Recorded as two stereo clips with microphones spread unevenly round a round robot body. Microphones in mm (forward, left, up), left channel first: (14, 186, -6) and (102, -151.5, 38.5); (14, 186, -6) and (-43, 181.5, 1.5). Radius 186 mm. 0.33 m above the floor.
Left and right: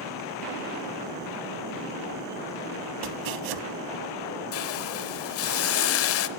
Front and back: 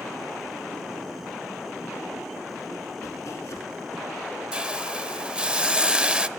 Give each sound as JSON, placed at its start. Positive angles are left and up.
{"t": 3.0, "sound": "chopping", "azimuth_deg": -45, "distance_m": 0.8}
{"t": 4.5, "sound": "a hiss", "azimuth_deg": 110, "distance_m": 0.8}